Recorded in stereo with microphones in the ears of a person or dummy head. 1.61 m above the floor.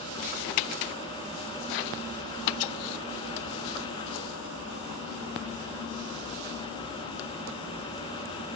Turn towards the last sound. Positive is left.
No sound to turn to.